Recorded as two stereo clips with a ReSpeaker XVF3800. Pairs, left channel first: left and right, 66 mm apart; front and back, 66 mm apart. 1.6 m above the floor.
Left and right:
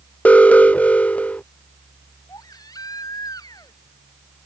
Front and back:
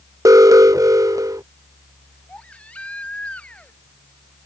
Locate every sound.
0.2 s an alarm: 155° left
2.3 s a baby crying: 70° left